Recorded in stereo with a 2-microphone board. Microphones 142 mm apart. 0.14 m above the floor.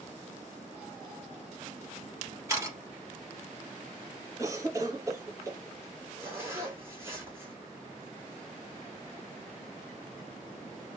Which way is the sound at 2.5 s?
20° right (ahead or behind).